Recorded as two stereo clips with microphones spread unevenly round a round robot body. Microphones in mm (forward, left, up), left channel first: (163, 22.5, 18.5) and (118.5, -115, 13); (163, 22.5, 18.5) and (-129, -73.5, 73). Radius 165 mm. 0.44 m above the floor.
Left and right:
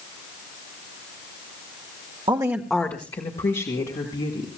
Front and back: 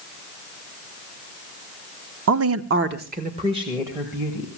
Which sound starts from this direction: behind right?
A woman speaking, at 2.3 s.